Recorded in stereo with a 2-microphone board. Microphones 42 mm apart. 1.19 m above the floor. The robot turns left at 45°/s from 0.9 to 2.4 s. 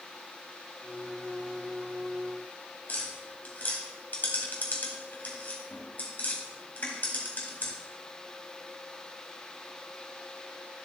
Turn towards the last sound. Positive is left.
turn(degrees=45)  # may be behind; listen again after turning